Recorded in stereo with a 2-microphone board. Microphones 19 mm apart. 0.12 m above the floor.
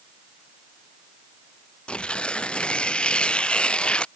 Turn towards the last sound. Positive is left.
turn(degrees=85)